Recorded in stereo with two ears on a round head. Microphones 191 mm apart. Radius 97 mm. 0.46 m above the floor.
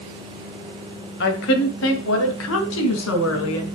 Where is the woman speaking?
55° left (ahead or behind), 1.9 m; by 3.6 s 75° left (ahead or behind), 4.5 m.